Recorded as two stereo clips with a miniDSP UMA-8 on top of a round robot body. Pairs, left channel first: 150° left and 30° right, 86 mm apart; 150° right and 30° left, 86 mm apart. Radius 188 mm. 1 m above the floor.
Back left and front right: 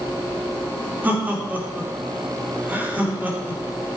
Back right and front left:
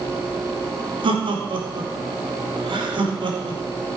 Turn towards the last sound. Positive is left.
turn(degrees=40)